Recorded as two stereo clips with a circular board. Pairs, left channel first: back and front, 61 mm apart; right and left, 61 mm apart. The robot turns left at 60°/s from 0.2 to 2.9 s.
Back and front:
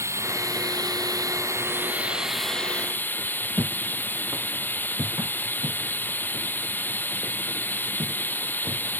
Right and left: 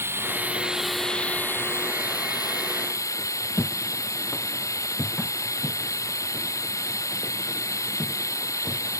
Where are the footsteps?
30° right; by 9.0 s straight ahead.